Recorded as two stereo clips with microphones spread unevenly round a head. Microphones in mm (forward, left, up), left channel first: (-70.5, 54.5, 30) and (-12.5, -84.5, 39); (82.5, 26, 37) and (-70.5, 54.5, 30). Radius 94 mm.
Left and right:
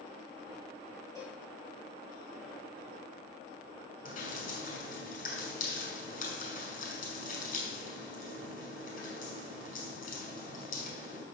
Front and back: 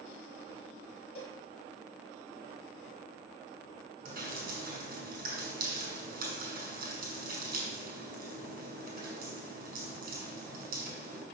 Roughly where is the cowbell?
Ahead left.